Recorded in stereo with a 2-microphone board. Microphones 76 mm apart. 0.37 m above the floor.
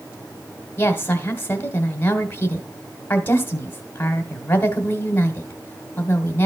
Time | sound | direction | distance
0.8 | a woman speaking | 30° left (ahead or behind) | 1.4 m